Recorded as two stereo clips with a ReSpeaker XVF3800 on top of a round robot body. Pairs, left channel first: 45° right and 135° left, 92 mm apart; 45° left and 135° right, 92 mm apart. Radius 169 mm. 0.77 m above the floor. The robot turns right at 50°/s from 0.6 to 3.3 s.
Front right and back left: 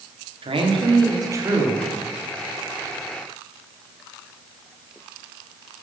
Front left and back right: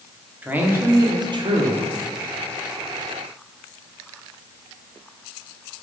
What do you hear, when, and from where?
0.4 s a man speaking: 155° left, 1.8 m; by 1.9 s 145° right, 1.8 m